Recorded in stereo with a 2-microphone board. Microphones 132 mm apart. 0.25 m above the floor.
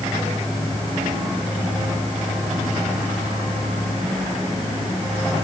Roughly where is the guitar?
I don't hear a guitar.